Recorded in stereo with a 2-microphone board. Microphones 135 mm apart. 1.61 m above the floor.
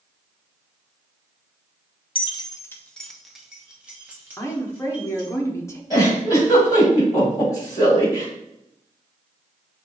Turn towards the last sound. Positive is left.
turn(degrees=30)  # may be behind; listen again after turning